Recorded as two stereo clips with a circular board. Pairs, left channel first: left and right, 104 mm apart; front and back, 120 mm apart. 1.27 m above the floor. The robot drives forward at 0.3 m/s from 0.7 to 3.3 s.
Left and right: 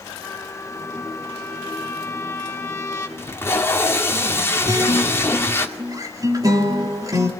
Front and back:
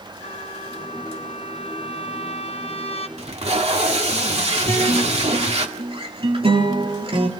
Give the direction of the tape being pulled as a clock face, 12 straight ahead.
7 o'clock.